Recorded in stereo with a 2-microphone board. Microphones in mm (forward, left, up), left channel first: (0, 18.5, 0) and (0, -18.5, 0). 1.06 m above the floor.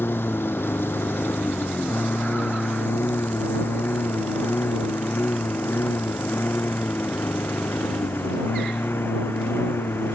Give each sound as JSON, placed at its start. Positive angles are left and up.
{"t": 0.0, "sound": "a lawn mower", "side_deg": 75}